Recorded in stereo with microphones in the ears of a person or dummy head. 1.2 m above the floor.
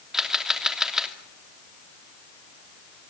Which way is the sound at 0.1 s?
5° right (ahead or behind).